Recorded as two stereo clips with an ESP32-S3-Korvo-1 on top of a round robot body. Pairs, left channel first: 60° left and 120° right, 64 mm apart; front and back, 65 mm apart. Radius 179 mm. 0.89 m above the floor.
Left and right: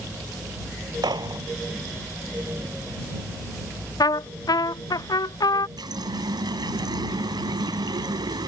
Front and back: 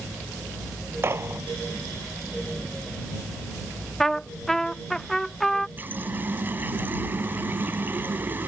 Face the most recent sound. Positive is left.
turn(degrees=-120)